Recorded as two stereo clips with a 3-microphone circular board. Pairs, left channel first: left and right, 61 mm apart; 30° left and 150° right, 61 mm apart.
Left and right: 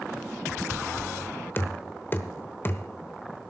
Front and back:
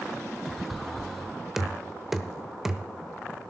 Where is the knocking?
130° left, 0.9 m.